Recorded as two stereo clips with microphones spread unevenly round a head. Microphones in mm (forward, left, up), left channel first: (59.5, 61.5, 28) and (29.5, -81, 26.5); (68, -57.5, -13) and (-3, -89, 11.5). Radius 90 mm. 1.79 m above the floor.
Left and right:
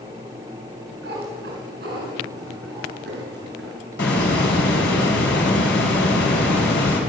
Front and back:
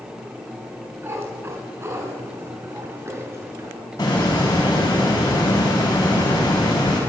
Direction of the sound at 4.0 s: 100° left.